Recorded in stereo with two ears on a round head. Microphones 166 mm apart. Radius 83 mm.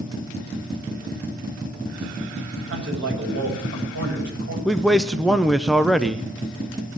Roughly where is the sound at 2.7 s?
Right.